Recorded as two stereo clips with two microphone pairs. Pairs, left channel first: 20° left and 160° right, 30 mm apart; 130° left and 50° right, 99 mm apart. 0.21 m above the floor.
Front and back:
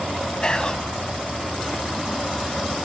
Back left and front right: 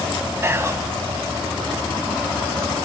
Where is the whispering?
10° right, 1.2 m.